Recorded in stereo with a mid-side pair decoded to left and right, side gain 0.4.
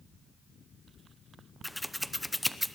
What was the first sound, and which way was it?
Scissors, straight ahead.